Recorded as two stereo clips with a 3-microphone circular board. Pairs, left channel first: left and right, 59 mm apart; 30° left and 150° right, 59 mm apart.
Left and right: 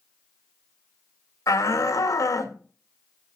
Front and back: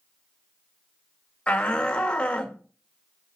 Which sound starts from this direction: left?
A shout, at 1.5 s.